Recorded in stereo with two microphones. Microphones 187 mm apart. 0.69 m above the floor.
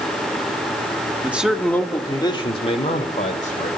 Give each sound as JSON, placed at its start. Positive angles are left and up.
{"t": 1.2, "sound": "a man speaking", "side_deg": -10, "distance_m": 1.6}